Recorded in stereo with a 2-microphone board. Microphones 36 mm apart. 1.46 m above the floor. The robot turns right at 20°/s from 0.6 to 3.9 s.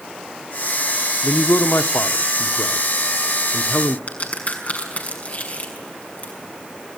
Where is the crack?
45° left (ahead or behind), 6 m.